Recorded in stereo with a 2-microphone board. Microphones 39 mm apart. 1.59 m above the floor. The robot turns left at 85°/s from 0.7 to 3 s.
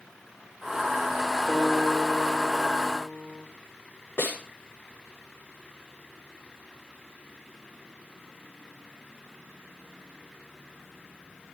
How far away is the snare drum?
About 7 m.